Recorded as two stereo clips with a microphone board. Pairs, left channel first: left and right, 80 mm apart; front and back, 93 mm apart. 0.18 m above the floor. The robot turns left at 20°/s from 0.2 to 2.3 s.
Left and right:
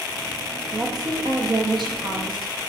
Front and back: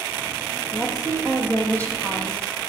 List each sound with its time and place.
0.7 s a woman speaking: 50° right, 6 m; by 2.5 s 80° right, 6 m